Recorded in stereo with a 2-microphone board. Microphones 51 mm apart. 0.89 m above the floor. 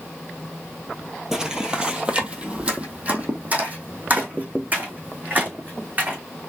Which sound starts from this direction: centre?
Footsteps, at 1.3 s.